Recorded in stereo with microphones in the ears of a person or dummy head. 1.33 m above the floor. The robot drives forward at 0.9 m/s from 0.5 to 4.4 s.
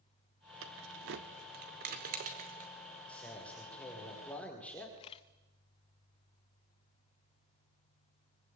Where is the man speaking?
10° left (ahead or behind), 5.5 m.